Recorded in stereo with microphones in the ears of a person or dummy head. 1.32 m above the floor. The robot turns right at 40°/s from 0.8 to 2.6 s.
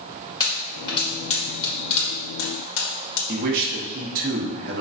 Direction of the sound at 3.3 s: 50° right (ahead or behind).